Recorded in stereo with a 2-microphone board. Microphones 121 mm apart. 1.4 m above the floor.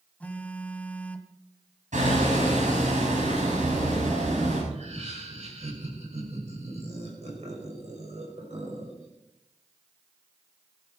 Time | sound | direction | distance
0.2 | a phone buzzing | 10° left (ahead or behind) | 1.3 m
1.9 | hammering | 85° right | 7.5 m
4.7 | laughter | 65° right (ahead or behind) | 6 m